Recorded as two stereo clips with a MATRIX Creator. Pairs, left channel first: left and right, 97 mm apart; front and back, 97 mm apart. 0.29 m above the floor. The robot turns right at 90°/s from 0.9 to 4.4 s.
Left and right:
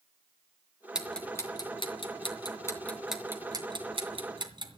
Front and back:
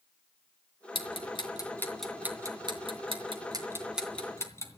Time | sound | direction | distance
0.9 | ticking | 10° right | 2.5 m